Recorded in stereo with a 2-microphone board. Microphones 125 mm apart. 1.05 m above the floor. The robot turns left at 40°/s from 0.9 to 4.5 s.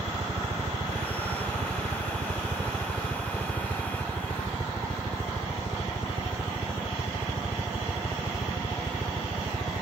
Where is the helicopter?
70° right (ahead or behind); by 9.8 s 30° left (ahead or behind).